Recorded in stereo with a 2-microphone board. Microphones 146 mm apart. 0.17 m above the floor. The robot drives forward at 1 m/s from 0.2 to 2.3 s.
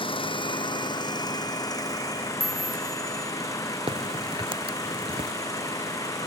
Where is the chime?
75° right (ahead or behind).